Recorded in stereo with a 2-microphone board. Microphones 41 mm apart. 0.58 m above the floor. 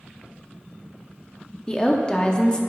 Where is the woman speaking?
20° left (ahead or behind), 0.7 m.